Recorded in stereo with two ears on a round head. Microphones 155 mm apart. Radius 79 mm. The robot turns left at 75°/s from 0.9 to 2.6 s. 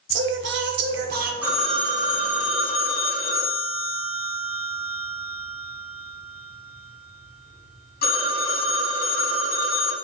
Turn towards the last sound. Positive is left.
turn(degrees=100)